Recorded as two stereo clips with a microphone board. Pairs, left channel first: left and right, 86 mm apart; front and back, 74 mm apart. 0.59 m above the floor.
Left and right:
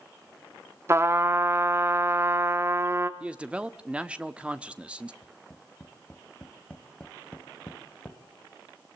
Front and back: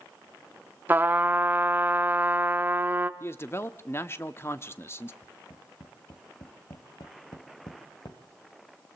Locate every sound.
0.9 s a trumpet: 130° right, 1.0 m
3.2 s a man speaking: 20° right, 0.9 m
5.2 s tapping: 15° left, 1.9 m